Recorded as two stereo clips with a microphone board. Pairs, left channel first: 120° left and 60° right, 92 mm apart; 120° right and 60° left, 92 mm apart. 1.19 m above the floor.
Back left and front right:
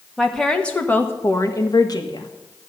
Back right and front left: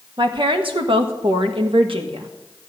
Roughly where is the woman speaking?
Ahead left.